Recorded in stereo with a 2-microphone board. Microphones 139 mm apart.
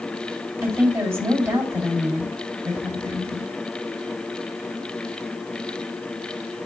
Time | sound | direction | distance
0.6 | a woman speaking | 20° right (ahead or behind) | 3.5 m